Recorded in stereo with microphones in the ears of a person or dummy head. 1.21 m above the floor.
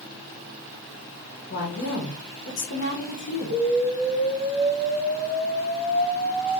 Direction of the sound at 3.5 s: 55° right (ahead or behind).